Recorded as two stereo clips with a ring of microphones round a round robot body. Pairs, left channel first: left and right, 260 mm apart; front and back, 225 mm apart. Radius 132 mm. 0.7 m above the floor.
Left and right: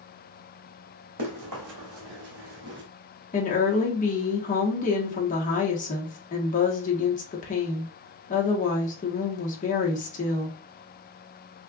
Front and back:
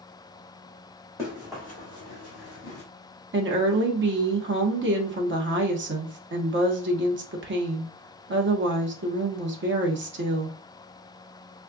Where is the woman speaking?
150° left, 1.3 m.